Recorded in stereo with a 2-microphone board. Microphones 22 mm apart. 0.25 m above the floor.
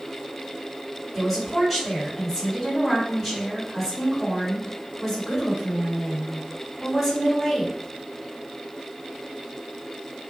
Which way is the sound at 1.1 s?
5° left (ahead or behind).